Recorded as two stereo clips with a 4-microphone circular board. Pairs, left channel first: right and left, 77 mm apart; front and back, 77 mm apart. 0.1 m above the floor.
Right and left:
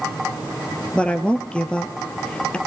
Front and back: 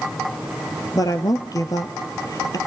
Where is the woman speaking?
15° right, 1.9 m.